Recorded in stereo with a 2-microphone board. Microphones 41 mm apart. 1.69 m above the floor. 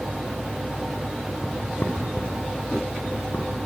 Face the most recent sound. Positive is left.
turn(degrees=55)  # may be behind; listen again after turning